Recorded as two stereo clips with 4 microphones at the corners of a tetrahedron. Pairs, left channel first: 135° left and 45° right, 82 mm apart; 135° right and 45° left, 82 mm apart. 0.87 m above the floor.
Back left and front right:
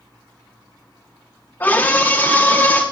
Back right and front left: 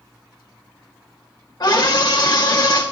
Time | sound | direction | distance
1.6 | a scream | 165° right | 1.7 m